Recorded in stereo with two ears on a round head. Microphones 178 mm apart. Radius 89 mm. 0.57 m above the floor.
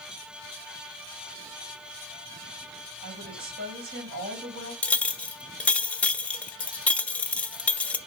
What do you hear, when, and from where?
3.0 s a woman speaking: 55° right (ahead or behind), 3 m
4.8 s a clink: 5° left (ahead or behind), 0.6 m